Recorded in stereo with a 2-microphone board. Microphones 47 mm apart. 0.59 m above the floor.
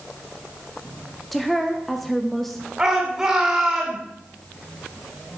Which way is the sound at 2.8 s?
15° right (ahead or behind).